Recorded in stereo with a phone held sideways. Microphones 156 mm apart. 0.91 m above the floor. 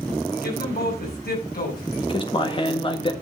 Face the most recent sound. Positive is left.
turn(degrees=35)  # may be behind; listen again after turning